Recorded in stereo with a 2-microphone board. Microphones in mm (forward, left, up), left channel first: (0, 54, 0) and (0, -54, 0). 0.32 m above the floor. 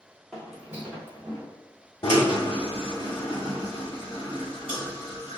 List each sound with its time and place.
0.3 s footsteps: 5° left (ahead or behind), 1.2 m; by 1.5 s 25° right (ahead or behind), 1.4 m
2.0 s a drill: 50° left (ahead or behind), 1.3 m